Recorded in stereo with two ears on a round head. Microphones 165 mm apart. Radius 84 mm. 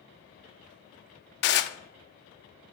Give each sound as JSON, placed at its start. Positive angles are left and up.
{"t": 1.4, "sound": "dishes clattering", "side_deg": 60, "distance_m": 0.7}